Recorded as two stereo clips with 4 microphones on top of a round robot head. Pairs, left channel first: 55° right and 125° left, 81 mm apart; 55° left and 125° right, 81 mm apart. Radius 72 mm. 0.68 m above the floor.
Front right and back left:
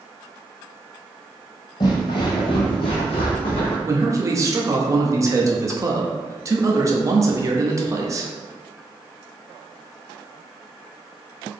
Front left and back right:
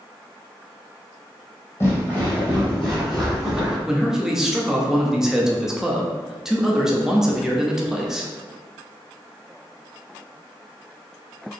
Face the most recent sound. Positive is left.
turn(degrees=150)